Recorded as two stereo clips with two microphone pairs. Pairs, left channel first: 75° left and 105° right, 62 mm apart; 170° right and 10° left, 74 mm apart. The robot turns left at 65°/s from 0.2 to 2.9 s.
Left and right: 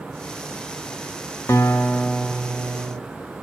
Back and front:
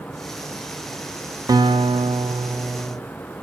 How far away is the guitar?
About 0.5 m.